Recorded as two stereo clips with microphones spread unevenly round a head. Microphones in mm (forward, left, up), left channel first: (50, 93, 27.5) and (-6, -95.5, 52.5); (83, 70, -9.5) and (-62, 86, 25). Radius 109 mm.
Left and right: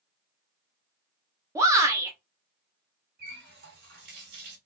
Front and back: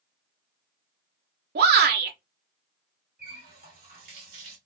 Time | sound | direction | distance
1.6 | a shout | straight behind | 1.1 m
3.2 | a running tap | 150° right | 1.9 m